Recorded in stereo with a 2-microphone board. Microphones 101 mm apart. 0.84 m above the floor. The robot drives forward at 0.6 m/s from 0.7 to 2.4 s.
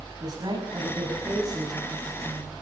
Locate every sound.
0.2 s a woman speaking: 40° right (ahead or behind), 7 m; by 2.5 s 35° right (ahead or behind), 7.5 m